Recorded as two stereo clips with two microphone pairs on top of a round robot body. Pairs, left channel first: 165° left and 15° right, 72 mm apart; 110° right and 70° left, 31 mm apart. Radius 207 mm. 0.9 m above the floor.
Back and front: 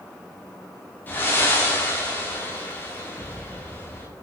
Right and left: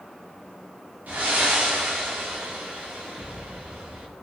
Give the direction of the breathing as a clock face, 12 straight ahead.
9 o'clock.